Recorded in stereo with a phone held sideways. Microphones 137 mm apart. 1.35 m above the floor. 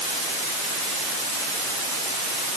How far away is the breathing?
I don't hear breathing.